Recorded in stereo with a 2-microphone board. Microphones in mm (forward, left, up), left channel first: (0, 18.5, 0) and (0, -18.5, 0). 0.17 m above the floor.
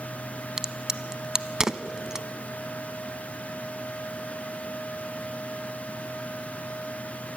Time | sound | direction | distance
0.6 | a crack | 20° right (ahead or behind) | 0.6 m